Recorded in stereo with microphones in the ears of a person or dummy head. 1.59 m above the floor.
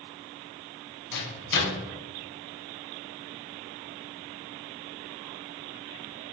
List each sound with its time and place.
1.1 s a microwave: 60° left (ahead or behind), 1.1 m